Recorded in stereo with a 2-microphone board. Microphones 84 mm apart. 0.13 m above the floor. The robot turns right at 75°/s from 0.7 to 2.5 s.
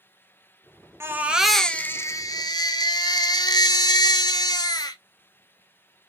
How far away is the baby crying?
About 0.6 m.